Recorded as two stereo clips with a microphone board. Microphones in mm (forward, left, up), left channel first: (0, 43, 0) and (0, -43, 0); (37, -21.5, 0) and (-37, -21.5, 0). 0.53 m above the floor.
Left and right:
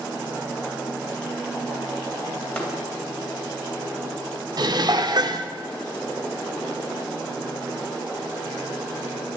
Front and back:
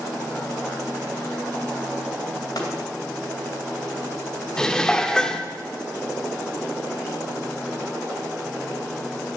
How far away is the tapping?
About 2.5 m.